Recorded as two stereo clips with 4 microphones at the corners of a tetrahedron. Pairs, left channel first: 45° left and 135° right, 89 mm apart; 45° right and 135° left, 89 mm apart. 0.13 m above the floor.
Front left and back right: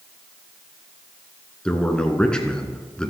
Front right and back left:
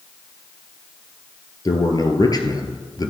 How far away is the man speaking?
About 1.7 m.